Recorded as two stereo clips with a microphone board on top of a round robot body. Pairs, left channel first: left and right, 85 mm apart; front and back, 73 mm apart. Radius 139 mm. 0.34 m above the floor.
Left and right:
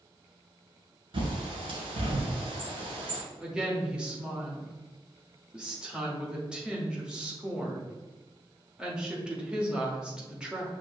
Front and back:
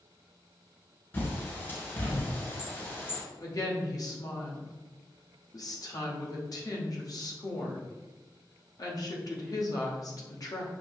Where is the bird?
60° right, 1.2 m.